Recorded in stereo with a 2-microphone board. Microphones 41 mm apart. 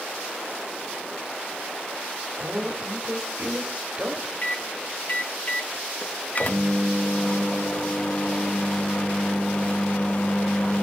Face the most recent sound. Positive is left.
turn(degrees=40)  # may be behind; listen again after turning